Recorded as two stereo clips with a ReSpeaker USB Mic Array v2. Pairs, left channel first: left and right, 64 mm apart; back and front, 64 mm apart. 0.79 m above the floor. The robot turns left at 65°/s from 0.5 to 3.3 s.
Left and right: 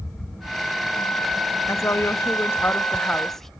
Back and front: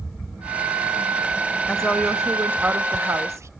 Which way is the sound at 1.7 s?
110° left.